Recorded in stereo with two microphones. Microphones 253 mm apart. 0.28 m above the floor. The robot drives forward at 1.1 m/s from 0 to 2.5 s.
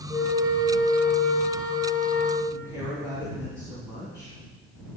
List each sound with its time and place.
0.1 s a flute: 10° right (ahead or behind), 3 m; by 2.4 s 35° right (ahead or behind), 0.9 m
2.5 s a woman speaking: 10° right (ahead or behind), 2.5 m